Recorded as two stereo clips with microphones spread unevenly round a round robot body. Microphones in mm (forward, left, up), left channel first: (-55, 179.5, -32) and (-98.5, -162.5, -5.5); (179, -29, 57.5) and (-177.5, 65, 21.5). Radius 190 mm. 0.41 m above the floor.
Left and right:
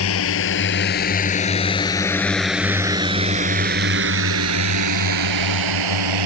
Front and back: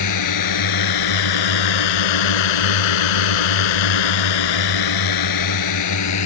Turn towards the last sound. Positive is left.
turn(degrees=-65)